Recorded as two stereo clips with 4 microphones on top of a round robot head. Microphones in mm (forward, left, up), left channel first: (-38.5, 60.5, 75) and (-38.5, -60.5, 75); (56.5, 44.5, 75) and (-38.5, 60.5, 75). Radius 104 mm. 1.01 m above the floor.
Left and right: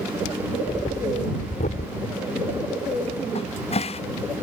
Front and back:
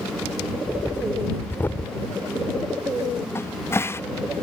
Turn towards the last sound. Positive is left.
turn(degrees=55)